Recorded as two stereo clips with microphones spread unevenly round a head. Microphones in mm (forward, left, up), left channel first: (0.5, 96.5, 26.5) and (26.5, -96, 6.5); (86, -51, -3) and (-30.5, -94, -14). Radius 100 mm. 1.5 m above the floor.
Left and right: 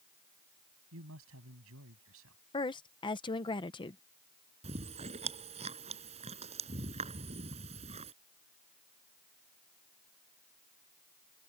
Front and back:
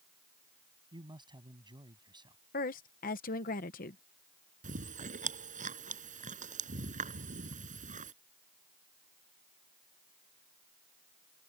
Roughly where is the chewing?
Behind right.